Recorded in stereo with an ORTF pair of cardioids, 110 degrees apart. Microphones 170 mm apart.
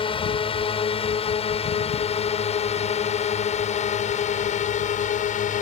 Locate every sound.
0.0 s a drone: 30° left; by 5.6 s 50° left